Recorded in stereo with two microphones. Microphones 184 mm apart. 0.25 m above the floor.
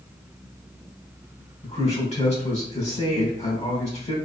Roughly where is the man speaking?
Left.